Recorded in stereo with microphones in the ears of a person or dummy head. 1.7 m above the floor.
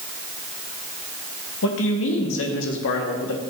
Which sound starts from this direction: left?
A man speaking, at 1.6 s.